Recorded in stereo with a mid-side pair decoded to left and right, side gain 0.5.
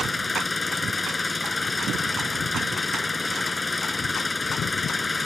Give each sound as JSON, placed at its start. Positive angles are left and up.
{"t": 0.0, "sound": "an engine running", "azimuth_deg": 20}